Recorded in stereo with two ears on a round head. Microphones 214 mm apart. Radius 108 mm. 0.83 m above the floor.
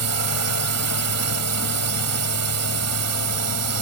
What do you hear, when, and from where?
0.0 s a drone: 75° right (ahead or behind)